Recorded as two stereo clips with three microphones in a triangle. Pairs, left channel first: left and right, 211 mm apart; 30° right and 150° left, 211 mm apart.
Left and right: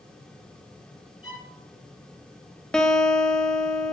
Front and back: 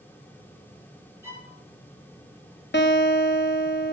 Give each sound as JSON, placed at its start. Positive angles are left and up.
{"t": 1.2, "sound": "a violin", "azimuth_deg": 70, "distance_m": 3.0}
{"t": 2.7, "sound": "a guitar", "azimuth_deg": 5, "distance_m": 0.9}